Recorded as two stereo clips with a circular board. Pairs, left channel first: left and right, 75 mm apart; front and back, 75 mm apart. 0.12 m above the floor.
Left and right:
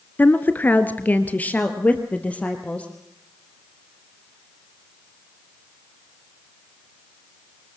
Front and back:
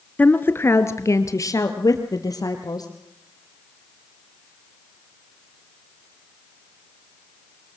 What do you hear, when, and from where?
0.2 s a woman speaking: 50° left, 1.3 m; by 2.9 s 20° left, 3 m